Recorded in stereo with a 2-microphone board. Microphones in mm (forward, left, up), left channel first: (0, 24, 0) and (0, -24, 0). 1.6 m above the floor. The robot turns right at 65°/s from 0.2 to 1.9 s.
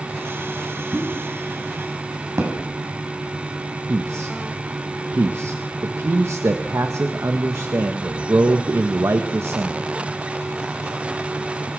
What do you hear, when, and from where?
0.9 s a pop: 35° right (ahead or behind), 6.5 m; by 2.5 s 80° right, 6.5 m
3.9 s a man speaking: 70° right (ahead or behind), 1.4 m